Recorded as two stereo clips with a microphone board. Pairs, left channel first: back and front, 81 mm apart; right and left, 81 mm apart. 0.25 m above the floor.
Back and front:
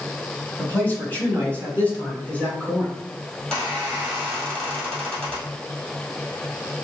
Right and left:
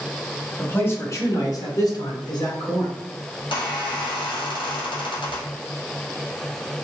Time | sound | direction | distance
0.6 | a man speaking | 140° right | 1.2 m
3.4 | a squeak | 100° right | 2 m